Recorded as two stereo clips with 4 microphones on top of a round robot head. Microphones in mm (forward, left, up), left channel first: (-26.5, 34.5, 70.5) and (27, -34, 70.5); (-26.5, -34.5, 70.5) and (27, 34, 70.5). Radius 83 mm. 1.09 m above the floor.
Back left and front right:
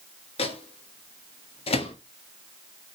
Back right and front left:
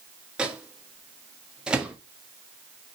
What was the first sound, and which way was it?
A microwave, 130° left.